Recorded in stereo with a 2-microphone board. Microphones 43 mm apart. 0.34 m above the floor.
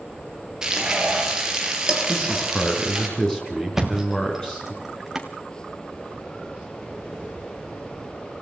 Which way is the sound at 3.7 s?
10° right (ahead or behind).